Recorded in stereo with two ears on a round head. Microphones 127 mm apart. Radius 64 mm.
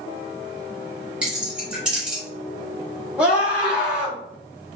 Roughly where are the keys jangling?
Centre.